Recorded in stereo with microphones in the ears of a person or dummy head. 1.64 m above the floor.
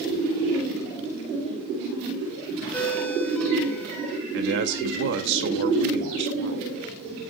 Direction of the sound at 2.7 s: 10° left (ahead or behind).